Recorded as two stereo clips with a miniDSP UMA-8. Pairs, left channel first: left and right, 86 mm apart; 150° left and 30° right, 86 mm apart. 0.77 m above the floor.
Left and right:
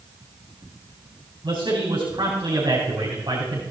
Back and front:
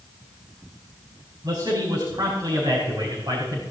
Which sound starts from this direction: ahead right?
A man speaking, at 1.4 s.